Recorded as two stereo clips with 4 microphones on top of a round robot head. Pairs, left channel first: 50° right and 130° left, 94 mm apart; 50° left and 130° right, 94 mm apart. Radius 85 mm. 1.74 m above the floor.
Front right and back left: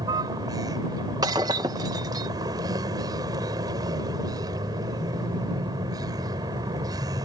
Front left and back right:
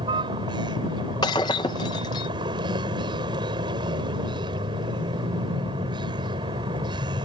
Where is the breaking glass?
90° left.